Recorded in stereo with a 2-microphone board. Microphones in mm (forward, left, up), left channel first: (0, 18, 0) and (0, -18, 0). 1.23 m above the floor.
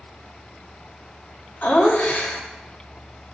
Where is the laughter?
50° left (ahead or behind), 2.5 m.